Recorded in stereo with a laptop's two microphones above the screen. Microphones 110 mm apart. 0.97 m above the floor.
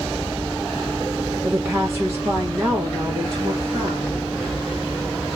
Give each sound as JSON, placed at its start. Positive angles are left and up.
{"t": 1.4, "sound": "a woman speaking", "side_deg": -15, "distance_m": 1.0}